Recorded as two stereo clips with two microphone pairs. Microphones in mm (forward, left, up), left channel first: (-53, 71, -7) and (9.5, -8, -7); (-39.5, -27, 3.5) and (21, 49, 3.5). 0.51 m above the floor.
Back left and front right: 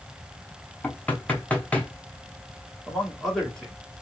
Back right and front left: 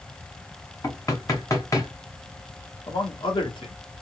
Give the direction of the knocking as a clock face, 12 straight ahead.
5 o'clock.